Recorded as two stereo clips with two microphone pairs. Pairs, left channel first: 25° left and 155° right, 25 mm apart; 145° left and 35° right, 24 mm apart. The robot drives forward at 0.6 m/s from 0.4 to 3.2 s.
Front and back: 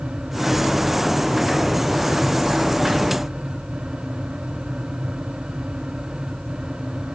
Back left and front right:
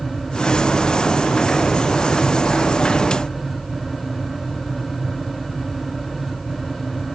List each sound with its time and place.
Only background noise.